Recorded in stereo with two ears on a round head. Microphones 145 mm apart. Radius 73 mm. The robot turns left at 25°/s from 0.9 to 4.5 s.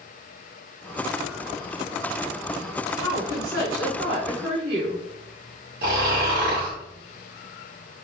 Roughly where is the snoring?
Right.